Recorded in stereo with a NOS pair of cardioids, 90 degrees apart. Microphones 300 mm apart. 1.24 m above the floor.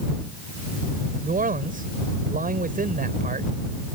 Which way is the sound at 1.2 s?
30° right.